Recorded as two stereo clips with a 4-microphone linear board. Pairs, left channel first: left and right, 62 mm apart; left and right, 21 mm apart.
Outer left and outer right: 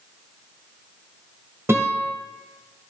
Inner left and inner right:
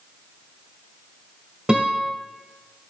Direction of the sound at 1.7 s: 45° right (ahead or behind).